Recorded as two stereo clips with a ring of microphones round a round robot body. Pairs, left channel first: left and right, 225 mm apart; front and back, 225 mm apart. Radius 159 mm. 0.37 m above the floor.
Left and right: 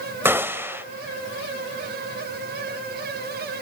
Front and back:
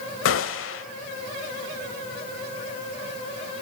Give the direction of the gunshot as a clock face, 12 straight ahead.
12 o'clock.